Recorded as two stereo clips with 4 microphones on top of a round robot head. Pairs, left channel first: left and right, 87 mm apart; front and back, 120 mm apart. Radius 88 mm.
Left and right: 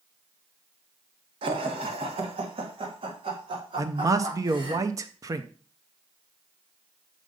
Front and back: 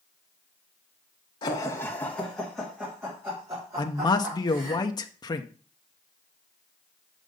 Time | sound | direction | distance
1.4 | laughter | 60° right | 1.3 m
3.8 | a man speaking | 50° right | 0.7 m